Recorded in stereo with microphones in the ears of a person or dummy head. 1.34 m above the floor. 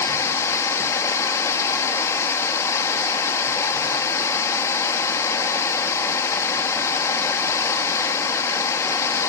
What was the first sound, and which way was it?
Running water, 20° left (ahead or behind).